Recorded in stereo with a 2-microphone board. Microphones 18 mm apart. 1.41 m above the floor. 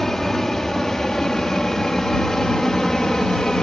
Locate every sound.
0.0 s an aircraft: 25° left (ahead or behind); by 3.6 s 40° left (ahead or behind)